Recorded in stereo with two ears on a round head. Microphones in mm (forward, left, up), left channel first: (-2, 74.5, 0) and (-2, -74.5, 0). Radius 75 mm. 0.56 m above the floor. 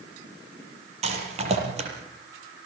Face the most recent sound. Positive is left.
turn(degrees=-40)  # may be behind; listen again after turning